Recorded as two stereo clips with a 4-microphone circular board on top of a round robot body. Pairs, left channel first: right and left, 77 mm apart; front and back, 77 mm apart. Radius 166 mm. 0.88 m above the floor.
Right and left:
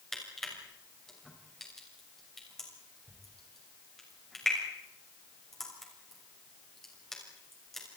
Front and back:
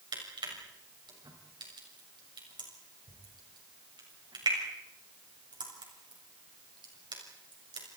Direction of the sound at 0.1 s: 175° right.